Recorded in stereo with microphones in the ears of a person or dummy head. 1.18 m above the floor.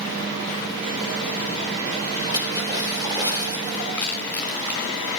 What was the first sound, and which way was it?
A splash, 20° right (ahead or behind).